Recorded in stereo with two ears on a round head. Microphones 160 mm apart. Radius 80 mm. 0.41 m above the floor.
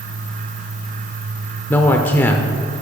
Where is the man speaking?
10° left (ahead or behind), 0.8 m.